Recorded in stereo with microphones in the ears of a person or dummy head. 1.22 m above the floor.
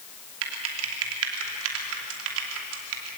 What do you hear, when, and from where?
0.4 s typing on a keyboard: 75° right (ahead or behind), 2.5 m